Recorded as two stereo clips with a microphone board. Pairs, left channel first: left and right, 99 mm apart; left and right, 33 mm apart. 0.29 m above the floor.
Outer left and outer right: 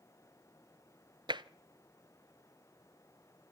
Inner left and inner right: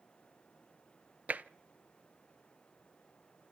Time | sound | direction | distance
1.3 | tapping | 50° right (ahead or behind) | 0.7 m